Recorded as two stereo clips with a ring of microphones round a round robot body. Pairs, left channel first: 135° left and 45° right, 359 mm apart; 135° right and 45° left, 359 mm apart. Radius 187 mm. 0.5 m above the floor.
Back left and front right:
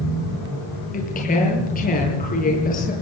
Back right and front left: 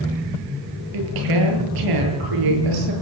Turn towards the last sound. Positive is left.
turn(degrees=70)